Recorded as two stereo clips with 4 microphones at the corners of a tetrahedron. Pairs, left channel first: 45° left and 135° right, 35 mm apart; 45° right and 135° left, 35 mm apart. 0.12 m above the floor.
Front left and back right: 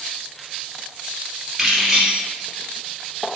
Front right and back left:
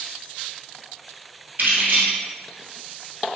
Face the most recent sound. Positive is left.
turn(degrees=145)